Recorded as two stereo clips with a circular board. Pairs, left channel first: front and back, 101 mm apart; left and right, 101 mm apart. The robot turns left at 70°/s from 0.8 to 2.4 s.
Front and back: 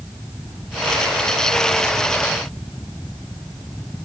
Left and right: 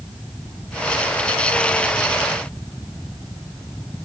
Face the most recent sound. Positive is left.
No sound to turn to.